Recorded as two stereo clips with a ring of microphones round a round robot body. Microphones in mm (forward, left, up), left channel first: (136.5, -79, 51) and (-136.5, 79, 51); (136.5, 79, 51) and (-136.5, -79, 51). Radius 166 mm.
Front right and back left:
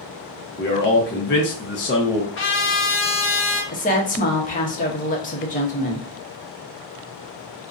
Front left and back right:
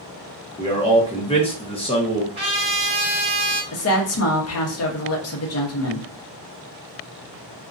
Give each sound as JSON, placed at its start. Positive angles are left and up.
{"t": 0.6, "sound": "a man speaking", "azimuth_deg": -30, "distance_m": 0.7}
{"t": 2.4, "sound": "a trumpet", "azimuth_deg": -80, "distance_m": 0.7}
{"t": 3.7, "sound": "a woman speaking", "azimuth_deg": 25, "distance_m": 0.8}